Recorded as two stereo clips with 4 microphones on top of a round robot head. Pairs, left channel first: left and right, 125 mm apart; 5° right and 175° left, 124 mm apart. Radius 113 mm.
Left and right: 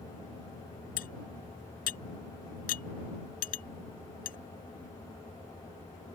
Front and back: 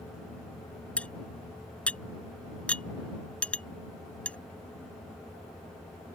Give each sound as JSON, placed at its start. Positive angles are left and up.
{"t": 1.0, "sound": "cutlery clinking", "azimuth_deg": 75}